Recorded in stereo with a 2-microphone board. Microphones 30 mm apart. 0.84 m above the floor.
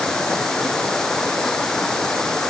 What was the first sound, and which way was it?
Running water, 15° left (ahead or behind).